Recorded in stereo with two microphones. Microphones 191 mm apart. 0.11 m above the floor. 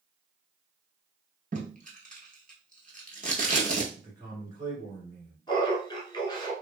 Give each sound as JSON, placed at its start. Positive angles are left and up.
{"t": 1.5, "sound": "tape being pulled", "side_deg": -40, "distance_m": 1.1}
{"t": 4.0, "sound": "a man speaking", "side_deg": -20, "distance_m": 1.4}
{"t": 5.5, "sound": "laughter", "side_deg": 20, "distance_m": 1.1}